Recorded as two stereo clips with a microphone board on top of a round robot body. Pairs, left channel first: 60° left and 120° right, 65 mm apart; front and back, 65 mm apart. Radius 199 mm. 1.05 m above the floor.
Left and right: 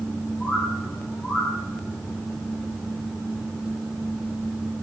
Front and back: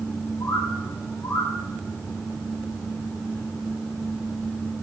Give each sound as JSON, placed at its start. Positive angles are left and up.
{"t": 0.4, "sound": "a bird", "azimuth_deg": 5, "distance_m": 2.0}